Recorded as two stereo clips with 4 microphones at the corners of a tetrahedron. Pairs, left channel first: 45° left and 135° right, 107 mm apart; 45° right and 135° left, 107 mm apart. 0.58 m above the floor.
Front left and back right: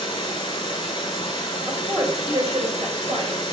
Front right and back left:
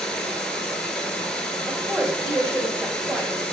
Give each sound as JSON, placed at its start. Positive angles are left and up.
{"t": 0.0, "sound": "running water", "azimuth_deg": 40, "distance_m": 0.7}
{"t": 1.7, "sound": "a woman speaking", "azimuth_deg": -160, "distance_m": 1.7}